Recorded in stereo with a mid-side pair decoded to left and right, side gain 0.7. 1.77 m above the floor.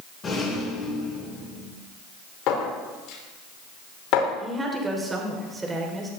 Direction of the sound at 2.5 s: 60° left.